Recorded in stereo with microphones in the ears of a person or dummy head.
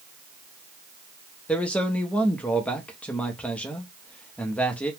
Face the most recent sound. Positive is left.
turn(degrees=5)  # may be behind; listen again after turning